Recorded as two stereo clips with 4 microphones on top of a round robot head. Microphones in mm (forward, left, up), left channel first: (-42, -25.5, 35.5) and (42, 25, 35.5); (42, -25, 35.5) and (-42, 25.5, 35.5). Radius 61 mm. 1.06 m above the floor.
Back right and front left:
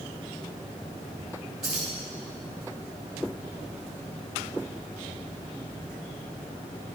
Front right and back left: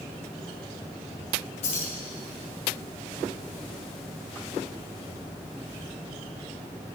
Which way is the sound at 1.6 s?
55° right.